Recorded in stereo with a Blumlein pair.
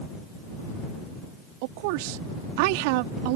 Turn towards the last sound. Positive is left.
turn(degrees=-45)